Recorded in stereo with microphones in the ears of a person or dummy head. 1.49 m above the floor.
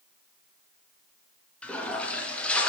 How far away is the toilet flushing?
About 0.7 m.